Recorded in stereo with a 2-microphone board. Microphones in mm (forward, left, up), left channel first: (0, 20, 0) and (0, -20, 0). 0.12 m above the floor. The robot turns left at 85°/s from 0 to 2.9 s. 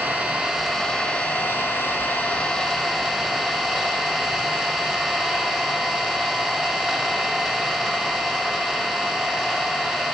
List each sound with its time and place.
0.0 s an engine running: 125° right, 1.5 m; by 10.2 s 10° right, 1.5 m